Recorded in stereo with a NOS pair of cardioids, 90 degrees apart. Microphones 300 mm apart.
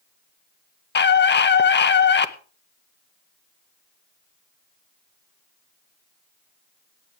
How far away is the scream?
About 1.6 m.